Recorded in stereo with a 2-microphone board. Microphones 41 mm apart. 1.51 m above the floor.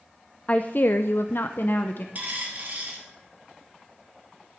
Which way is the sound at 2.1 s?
40° right (ahead or behind).